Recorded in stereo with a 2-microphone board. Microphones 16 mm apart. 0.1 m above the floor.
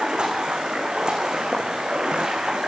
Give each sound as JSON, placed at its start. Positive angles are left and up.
{"t": 0.0, "sound": "running water", "side_deg": -65, "distance_m": 5.0}